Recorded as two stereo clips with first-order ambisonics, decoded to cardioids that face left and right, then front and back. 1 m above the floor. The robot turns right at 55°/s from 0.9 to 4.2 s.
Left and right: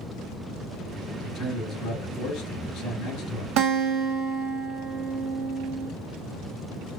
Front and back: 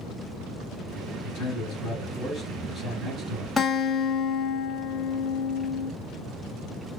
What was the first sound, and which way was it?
A man speaking, 35° left.